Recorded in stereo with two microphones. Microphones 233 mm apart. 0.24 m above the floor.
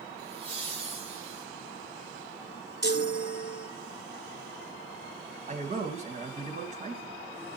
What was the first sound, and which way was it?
Laughter, 25° right (ahead or behind).